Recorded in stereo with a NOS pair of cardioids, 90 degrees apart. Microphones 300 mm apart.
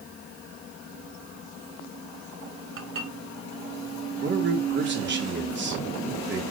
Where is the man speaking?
35° right, 4.5 m.